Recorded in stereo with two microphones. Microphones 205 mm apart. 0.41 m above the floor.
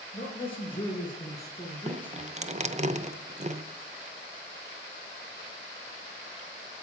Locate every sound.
0.1 s a man speaking: 25° left (ahead or behind), 5.5 m; by 2.9 s centre (ahead or behind), 4 m
1.9 s dripping: 35° right (ahead or behind), 0.7 m